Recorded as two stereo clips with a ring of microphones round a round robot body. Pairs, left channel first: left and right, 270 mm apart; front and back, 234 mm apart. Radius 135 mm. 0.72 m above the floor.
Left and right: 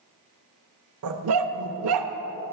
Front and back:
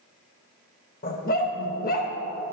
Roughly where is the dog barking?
Ahead right.